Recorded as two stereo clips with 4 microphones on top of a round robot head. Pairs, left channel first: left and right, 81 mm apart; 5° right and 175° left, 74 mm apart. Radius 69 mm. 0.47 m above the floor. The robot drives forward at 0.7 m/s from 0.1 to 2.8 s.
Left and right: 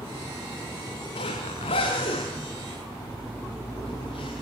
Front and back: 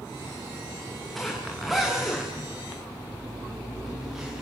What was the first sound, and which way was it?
A zipper, 85° left.